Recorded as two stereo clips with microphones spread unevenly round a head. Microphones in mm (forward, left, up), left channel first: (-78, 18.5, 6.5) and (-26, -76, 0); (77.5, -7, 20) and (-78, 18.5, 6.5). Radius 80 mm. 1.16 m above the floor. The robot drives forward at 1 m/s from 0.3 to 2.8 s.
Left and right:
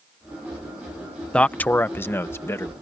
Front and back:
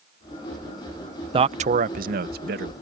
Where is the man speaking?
160° right; by 2.7 s 175° right.